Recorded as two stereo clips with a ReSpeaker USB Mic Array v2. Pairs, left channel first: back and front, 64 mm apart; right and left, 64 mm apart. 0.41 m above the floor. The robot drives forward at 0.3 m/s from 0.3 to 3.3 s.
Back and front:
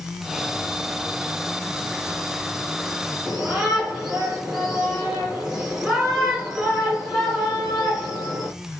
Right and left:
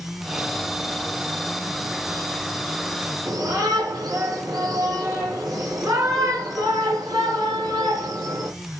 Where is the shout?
80° left, 7.5 m.